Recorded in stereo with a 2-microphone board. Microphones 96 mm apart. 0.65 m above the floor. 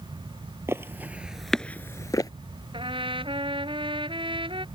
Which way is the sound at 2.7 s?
65° right (ahead or behind).